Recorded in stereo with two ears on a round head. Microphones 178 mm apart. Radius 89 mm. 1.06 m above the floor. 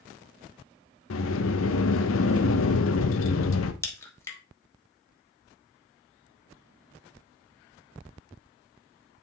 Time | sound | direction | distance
1.1 | a sliding door | 75° left (ahead or behind) | 0.7 m
3.8 | a crack | 15° left (ahead or behind) | 1.2 m